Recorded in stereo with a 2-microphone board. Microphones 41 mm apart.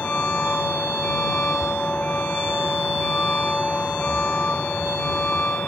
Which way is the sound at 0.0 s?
35° left (ahead or behind).